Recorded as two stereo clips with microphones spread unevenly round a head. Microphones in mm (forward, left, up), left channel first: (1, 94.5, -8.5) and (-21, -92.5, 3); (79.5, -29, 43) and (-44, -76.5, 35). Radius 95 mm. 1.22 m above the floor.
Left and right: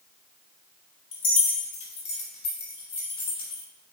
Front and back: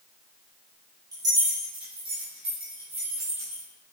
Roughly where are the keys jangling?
Behind left.